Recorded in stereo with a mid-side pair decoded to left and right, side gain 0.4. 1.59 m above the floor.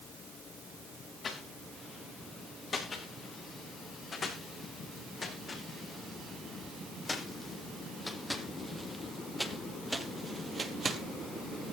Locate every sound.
1.2 s footsteps: 55° left, 9.5 m; by 11.0 s 50° right, 2.5 m